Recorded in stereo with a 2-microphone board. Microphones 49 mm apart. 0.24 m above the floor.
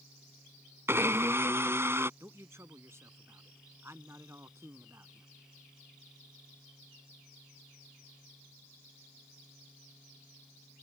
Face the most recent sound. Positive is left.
turn(degrees=-60)  # may be behind; listen again after turning